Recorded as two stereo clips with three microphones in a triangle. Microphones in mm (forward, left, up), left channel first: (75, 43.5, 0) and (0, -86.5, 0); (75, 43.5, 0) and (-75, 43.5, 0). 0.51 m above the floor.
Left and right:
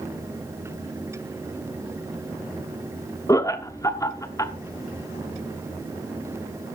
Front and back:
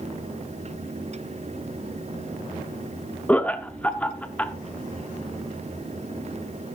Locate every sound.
3.3 s laughter: 65° left, 0.8 m